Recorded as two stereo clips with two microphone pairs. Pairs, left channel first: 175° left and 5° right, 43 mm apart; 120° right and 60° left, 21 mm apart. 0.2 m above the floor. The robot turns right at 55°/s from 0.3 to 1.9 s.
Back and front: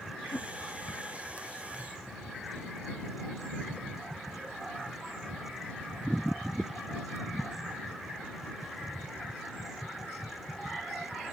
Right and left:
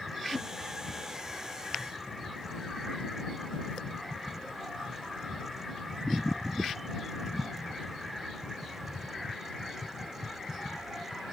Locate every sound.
0.3 s a whoosh: 175° left; by 0.5 s 175° right